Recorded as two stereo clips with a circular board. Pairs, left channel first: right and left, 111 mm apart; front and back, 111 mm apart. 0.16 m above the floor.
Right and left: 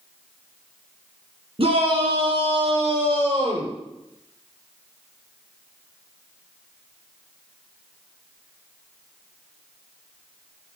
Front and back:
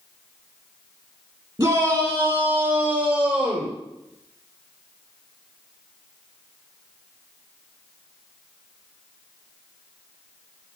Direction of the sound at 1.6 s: 115° left.